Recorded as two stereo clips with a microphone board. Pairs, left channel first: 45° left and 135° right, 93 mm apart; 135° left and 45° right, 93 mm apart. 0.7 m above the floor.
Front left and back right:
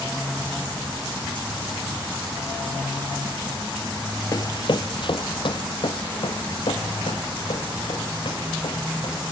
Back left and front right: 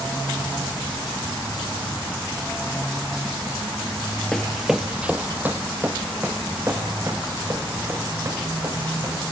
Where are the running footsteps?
55° left, 0.8 m; by 9.2 s 15° left, 6 m.